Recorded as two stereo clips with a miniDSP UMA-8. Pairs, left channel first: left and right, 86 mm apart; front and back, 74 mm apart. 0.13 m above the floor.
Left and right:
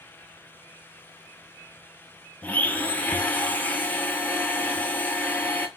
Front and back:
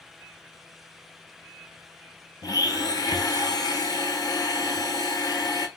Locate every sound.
2.4 s a blender: 20° left, 0.6 m